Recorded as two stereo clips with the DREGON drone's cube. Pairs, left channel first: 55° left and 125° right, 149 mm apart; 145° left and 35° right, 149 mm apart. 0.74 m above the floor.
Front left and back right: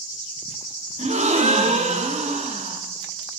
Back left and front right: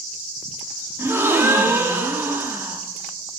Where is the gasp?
105° right, 1.2 m.